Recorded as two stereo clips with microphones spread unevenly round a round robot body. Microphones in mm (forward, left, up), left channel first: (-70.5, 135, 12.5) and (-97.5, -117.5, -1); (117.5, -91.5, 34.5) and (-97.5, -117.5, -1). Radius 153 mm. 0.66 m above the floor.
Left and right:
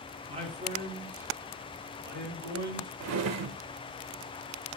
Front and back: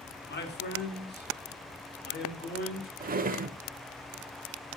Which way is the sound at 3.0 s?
115° right.